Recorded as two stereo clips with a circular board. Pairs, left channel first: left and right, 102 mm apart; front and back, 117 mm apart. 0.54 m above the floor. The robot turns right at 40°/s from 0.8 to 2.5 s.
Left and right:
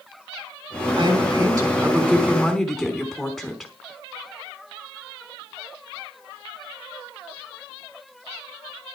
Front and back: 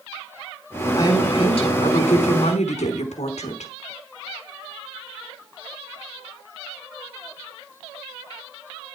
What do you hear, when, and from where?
1.0 s a woman speaking: 60° right, 5 m; by 3.7 s straight ahead, 5 m